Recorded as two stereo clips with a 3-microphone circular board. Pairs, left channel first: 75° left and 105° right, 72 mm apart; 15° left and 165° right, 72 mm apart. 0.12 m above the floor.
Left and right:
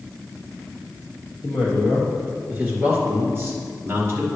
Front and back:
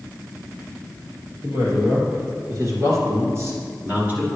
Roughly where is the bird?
No bird in this recording.